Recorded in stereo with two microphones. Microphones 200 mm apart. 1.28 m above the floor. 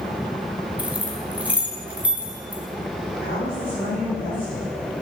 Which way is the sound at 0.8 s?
5° right (ahead or behind).